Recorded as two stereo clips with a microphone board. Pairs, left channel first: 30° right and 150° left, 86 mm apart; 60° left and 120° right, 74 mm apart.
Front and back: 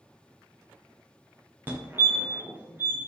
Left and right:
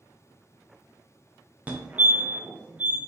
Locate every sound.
1.7 s a fire alarm: 170° right, 1.2 m